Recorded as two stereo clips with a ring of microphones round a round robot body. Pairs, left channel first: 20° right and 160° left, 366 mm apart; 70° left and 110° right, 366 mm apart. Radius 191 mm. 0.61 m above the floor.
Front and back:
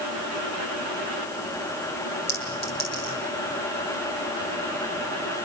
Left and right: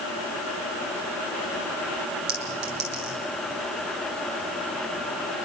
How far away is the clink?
About 8 m.